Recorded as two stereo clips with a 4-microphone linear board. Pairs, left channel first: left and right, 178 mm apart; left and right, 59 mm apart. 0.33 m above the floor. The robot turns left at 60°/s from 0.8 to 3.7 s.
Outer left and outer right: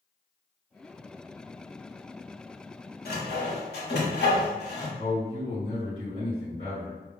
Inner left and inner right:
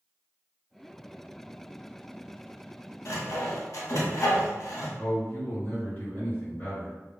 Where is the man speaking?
35° left (ahead or behind), 1.8 m.